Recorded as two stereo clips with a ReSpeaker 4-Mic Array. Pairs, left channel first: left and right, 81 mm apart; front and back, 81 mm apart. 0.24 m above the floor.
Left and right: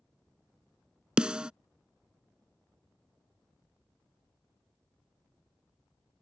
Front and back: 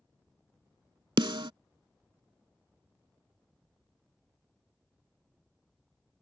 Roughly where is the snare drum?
Behind.